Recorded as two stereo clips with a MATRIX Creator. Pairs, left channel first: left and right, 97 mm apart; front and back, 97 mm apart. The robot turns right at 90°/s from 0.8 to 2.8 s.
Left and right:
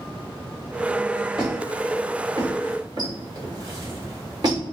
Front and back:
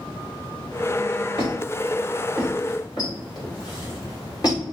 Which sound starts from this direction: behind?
A squeak, at 1.4 s.